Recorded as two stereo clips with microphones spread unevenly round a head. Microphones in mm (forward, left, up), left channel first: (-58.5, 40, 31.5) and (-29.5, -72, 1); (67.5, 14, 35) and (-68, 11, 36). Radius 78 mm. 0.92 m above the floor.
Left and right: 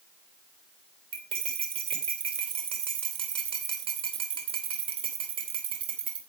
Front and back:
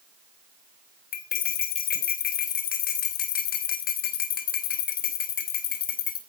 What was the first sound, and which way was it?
Cutlery clinking, 20° right.